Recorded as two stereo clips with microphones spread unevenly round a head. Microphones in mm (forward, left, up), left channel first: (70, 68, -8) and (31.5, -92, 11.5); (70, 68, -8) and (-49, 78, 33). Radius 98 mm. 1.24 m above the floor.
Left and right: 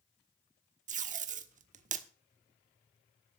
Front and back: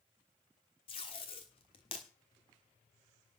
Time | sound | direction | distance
0.9 | tape being pulled | 75° right | 1.3 m